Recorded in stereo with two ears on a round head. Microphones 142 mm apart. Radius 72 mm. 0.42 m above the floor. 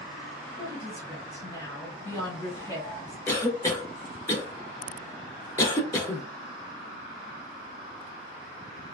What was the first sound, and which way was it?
A woman speaking, 20° left (ahead or behind).